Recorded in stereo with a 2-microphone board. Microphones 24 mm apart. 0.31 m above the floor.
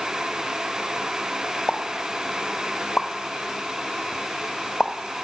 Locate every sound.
1.7 s a pop: 30° left (ahead or behind), 0.5 m